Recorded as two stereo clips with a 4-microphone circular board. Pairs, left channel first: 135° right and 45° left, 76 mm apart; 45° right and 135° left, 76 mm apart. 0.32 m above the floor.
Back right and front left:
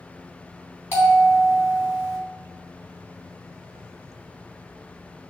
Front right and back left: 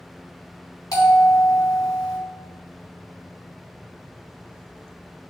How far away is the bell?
About 3.5 m.